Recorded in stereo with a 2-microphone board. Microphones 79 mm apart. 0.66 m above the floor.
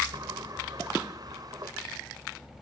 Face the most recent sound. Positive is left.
turn(degrees=-55)  # may be behind; listen again after turning